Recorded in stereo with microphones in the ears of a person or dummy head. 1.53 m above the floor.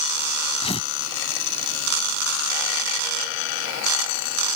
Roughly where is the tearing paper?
Left.